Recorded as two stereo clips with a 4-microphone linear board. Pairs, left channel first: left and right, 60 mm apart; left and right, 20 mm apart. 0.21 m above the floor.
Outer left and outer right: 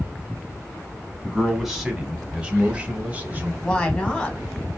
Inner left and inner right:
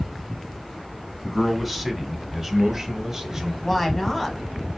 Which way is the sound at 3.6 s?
20° left (ahead or behind).